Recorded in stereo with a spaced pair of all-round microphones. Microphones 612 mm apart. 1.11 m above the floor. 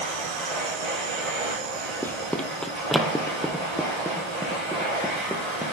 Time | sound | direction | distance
0.0 | a machine running | 65° right (ahead or behind) | 7 m
2.0 | running footsteps | 5° left (ahead or behind) | 1.2 m